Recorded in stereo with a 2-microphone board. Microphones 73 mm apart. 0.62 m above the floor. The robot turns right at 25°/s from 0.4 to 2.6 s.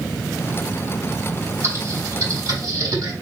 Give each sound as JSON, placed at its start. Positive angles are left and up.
{"t": 1.6, "sound": "typing on a keyboard", "side_deg": -40, "distance_m": 3.5}